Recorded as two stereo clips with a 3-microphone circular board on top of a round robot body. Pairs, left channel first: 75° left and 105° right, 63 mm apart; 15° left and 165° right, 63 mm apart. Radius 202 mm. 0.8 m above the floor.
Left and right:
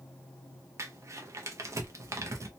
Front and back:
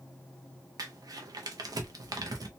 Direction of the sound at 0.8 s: 145° right.